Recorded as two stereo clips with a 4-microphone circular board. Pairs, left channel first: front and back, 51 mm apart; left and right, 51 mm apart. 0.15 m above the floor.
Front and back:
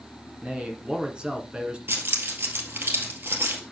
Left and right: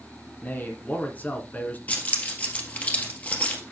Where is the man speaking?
120° left, 1.9 m.